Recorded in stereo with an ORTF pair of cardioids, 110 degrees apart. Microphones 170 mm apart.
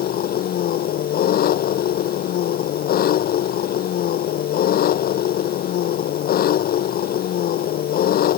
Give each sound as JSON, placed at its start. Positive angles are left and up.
{"t": 0.0, "sound": "an engine running", "azimuth_deg": 65}